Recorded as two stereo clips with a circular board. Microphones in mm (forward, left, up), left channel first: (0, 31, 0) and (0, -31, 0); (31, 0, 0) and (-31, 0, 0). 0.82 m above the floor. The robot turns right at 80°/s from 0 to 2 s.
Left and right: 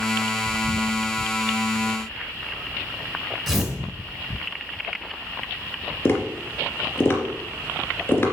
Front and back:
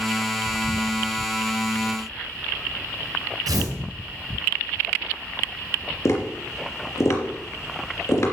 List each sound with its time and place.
3.5 s tearing paper: 175° right, 3.5 m
6.0 s tapping: 35° left, 3 m